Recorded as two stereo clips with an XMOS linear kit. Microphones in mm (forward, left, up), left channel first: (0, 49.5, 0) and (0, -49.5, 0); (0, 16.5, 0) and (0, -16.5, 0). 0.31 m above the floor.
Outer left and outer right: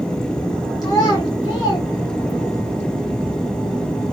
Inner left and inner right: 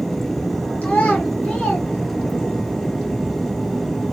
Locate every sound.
0.8 s a child speaking: 40° left (ahead or behind), 4.5 m; by 2.6 s 35° left (ahead or behind), 5.5 m